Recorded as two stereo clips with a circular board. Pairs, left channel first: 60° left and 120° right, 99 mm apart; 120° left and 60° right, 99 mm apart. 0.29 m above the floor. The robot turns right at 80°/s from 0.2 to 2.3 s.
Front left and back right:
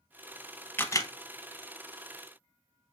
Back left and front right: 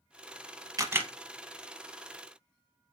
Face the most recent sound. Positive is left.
turn(degrees=110)